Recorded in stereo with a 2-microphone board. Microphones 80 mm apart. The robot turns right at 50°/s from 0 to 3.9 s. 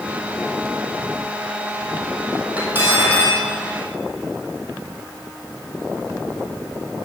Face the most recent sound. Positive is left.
turn(degrees=-95)